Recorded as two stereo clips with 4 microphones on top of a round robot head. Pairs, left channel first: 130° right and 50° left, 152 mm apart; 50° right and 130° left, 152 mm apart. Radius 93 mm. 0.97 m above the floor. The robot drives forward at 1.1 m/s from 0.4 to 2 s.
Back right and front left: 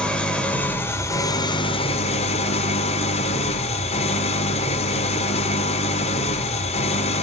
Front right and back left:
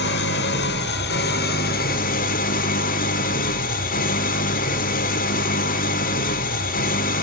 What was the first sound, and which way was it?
An engine running, 45° right.